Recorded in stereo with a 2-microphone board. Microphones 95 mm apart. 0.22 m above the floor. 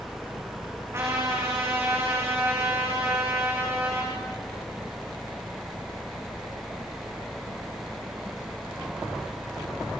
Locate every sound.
0.9 s a trumpet: 25° right (ahead or behind), 5.5 m